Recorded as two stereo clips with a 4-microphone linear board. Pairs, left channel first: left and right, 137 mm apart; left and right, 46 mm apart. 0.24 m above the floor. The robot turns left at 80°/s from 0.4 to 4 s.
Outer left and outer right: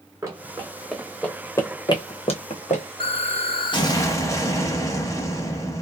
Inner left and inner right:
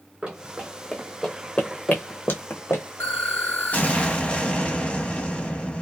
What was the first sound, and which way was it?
Running footsteps, 20° right (ahead or behind).